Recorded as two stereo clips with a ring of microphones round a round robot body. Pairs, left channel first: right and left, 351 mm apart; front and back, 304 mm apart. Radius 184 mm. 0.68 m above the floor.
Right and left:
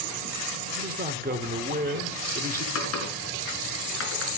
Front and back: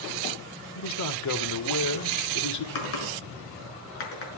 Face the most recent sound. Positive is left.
turn(degrees=-35)